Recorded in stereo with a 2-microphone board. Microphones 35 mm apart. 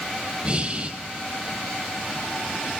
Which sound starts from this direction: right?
Breathing, at 0.4 s.